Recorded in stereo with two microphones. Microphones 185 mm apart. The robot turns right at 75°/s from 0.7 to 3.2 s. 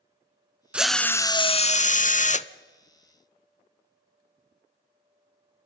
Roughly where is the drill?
Ahead.